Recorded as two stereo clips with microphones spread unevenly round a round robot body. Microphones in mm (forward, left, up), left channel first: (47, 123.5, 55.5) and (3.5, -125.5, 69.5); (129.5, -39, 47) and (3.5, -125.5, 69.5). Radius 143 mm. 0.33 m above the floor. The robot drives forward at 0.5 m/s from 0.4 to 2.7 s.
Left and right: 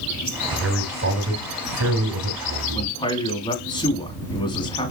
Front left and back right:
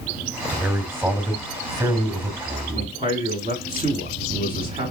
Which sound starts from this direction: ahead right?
A man speaking, at 0.5 s.